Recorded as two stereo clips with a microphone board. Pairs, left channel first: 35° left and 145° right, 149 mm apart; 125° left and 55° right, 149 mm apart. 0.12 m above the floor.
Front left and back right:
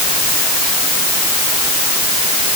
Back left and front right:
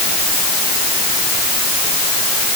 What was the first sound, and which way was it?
Only background noise.